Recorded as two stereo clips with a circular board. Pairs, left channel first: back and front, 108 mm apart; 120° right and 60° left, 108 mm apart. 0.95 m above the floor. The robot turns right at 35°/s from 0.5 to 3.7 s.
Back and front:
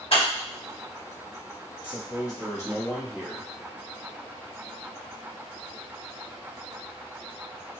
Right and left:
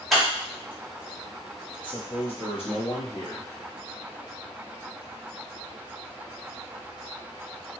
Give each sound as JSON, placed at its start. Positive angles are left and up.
{"t": 0.1, "sound": "scissors", "azimuth_deg": 150, "distance_m": 1.7}
{"t": 1.8, "sound": "a man speaking", "azimuth_deg": -150, "distance_m": 1.3}